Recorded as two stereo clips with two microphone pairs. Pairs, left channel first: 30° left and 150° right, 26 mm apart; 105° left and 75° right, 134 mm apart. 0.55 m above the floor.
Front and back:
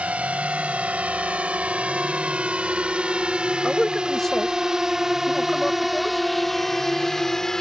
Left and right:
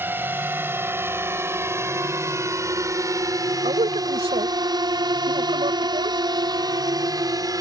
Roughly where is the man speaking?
Ahead right.